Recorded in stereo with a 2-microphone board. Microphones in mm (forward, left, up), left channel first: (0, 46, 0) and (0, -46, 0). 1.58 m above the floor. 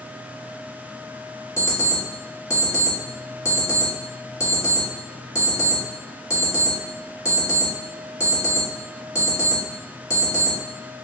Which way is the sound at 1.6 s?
35° left (ahead or behind).